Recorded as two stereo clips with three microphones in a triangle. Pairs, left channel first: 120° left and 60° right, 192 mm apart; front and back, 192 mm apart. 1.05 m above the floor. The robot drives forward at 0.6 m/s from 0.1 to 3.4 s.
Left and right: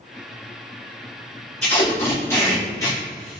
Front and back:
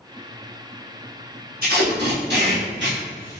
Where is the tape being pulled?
160° right, 1.1 m; by 3.4 s 170° right, 2 m.